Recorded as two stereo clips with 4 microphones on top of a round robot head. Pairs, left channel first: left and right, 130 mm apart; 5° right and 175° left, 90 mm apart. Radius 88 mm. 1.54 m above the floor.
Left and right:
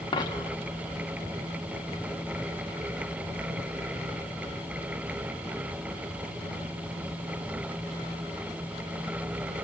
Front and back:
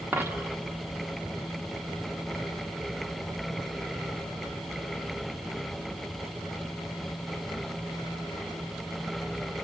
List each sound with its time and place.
0.1 s a dropped coin: 125° left, 1.1 m